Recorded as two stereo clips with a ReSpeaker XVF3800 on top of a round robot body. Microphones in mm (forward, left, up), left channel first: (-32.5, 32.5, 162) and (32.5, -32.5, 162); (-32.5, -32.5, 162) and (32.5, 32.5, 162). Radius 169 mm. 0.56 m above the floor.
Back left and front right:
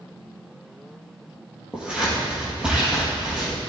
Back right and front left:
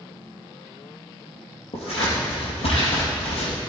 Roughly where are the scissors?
Behind right.